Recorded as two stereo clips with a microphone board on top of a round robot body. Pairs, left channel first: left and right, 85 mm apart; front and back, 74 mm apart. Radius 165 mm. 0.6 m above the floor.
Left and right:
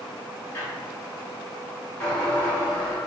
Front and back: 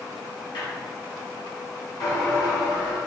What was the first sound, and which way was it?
A squeak, 25° left.